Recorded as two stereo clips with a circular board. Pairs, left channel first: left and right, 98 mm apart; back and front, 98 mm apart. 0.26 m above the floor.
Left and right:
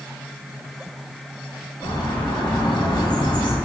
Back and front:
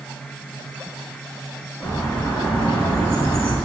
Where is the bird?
105° left, 3 m.